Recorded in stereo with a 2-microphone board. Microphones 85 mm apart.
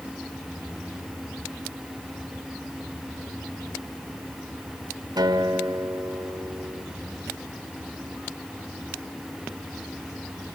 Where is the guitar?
55° right (ahead or behind), 2 m.